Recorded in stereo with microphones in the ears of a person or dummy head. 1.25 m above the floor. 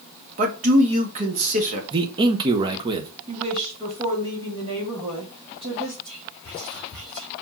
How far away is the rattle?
No rattle in this recording.